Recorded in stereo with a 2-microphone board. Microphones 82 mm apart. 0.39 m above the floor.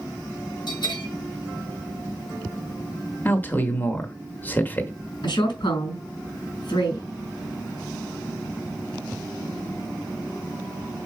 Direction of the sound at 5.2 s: 70° left (ahead or behind).